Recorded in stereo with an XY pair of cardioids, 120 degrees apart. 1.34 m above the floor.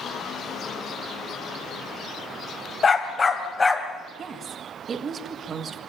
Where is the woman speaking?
40° right, 1.9 m.